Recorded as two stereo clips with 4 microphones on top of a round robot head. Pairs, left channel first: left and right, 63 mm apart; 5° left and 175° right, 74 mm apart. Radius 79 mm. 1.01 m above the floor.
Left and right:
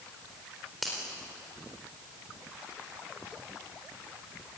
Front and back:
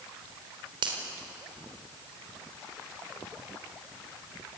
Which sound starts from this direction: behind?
A finger snap, at 0.8 s.